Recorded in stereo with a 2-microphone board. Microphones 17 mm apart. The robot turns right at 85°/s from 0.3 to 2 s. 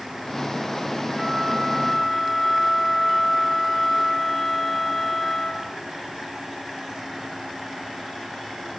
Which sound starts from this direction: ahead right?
A flute, at 1.2 s.